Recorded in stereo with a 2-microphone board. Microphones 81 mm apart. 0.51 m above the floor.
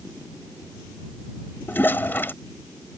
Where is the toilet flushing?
25° left (ahead or behind).